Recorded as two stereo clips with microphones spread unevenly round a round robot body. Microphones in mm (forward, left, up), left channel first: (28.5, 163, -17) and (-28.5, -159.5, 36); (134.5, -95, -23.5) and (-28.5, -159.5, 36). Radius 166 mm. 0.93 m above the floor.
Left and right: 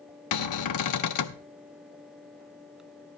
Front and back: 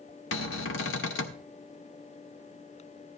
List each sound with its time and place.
0.3 s a cupboard door: 40° left, 0.5 m